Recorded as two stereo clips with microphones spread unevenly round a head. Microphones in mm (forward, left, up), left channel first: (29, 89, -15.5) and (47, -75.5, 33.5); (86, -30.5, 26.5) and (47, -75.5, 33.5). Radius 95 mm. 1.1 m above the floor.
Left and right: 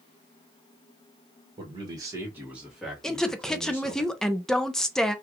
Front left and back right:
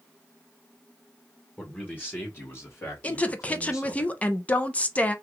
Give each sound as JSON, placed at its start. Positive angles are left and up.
{"t": 1.6, "sound": "a man speaking", "azimuth_deg": -20, "distance_m": 1.4}
{"t": 3.0, "sound": "a woman speaking", "azimuth_deg": 45, "distance_m": 0.6}